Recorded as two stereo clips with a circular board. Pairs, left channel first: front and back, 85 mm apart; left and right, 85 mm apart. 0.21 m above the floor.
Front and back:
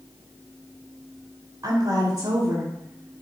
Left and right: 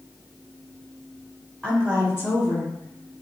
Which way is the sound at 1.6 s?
175° left.